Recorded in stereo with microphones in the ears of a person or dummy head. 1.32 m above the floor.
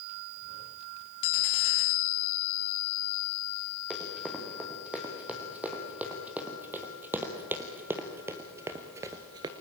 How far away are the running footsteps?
About 5 m.